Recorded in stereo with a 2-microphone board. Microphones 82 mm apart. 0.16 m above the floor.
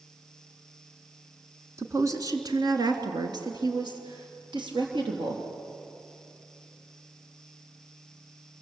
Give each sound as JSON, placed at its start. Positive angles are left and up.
{"t": 1.8, "sound": "a woman speaking", "side_deg": -35, "distance_m": 1.8}